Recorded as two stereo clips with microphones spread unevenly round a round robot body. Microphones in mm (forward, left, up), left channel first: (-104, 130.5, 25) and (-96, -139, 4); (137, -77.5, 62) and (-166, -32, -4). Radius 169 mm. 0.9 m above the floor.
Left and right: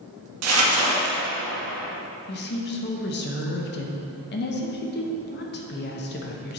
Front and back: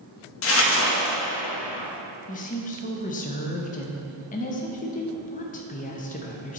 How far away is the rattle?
No rattle in this recording.